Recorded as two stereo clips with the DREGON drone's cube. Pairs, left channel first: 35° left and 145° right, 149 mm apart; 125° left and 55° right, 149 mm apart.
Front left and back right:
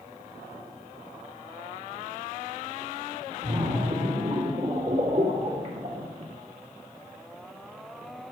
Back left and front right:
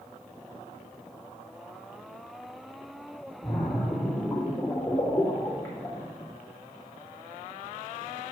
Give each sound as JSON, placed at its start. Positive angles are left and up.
{"t": 3.4, "sound": "a splash", "azimuth_deg": -160, "distance_m": 2.0}